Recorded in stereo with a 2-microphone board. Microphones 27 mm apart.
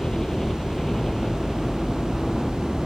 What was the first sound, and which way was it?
A helicopter, 20° left (ahead or behind).